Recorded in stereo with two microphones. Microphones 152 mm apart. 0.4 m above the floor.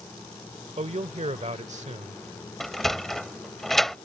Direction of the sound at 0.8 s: 45° right (ahead or behind).